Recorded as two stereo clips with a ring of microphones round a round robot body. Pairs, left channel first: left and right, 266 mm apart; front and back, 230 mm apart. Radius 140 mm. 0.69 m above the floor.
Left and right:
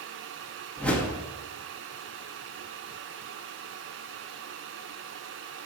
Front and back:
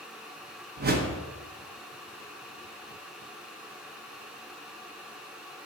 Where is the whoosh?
175° left, 0.9 m.